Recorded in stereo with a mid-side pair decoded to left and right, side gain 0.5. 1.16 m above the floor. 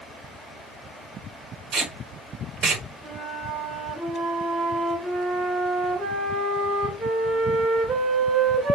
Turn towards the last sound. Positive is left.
turn(degrees=-15)